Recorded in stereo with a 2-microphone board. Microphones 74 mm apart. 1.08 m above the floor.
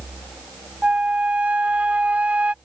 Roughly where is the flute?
Centre.